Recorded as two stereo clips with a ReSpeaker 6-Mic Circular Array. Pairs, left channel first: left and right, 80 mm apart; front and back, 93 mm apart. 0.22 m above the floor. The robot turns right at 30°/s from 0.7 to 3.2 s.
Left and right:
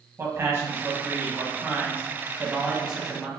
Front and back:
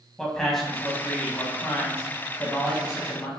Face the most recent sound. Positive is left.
turn(degrees=-5)